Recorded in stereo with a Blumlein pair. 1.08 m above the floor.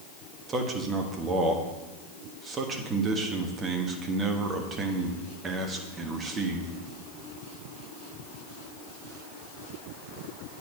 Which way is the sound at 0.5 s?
20° right.